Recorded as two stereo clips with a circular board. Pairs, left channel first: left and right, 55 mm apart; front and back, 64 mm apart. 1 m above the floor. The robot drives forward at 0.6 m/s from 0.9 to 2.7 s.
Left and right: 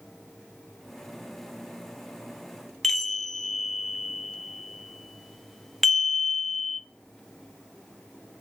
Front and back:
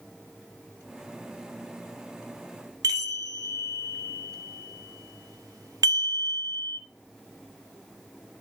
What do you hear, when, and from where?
2.8 s a chime: 175° left, 1.1 m